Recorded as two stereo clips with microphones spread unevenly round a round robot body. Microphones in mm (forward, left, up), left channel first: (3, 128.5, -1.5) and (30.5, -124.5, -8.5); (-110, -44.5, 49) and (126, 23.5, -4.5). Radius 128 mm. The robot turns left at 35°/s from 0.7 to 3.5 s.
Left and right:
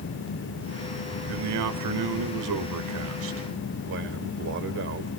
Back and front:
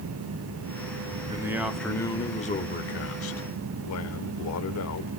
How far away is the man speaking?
About 1.9 m.